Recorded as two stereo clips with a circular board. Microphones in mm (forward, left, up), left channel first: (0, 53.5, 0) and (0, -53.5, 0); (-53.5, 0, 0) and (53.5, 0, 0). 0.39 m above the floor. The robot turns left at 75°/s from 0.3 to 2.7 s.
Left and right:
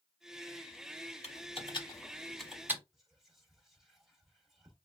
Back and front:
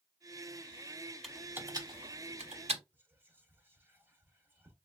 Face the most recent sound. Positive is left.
turn(degrees=-5)